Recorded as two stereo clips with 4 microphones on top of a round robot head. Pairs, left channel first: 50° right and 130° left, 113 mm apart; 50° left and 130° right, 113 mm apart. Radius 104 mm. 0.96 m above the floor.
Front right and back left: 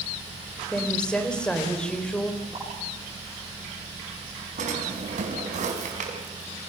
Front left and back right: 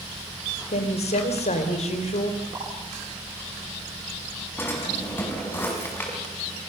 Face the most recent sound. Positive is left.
turn(degrees=125)